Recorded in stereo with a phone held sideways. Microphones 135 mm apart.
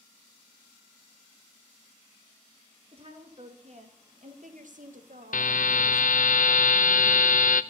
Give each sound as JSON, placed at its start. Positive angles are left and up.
{"t": 2.9, "sound": "a woman speaking", "side_deg": -45, "distance_m": 2.5}
{"t": 5.3, "sound": "a buzzer", "side_deg": 75, "distance_m": 0.5}